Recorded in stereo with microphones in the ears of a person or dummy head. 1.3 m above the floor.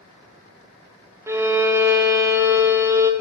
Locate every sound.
1.3 s a violin: 10° right (ahead or behind), 0.7 m